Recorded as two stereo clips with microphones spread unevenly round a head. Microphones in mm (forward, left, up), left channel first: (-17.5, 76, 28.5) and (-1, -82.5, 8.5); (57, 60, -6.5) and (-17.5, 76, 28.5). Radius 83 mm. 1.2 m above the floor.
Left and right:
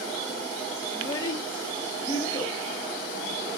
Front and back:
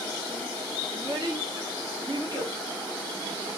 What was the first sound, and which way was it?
A child speaking, 165° left.